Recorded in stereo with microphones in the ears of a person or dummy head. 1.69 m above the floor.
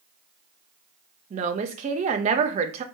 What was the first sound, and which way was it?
A woman speaking, 35° right (ahead or behind).